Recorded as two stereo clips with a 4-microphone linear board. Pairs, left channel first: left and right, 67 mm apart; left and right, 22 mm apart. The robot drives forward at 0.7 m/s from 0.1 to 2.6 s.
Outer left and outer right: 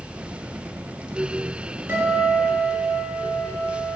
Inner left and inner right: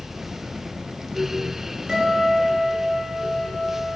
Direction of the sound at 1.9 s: 35° right (ahead or behind).